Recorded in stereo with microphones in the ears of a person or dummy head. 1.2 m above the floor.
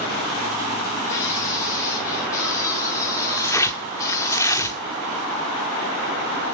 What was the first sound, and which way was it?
A scream, 20° left (ahead or behind).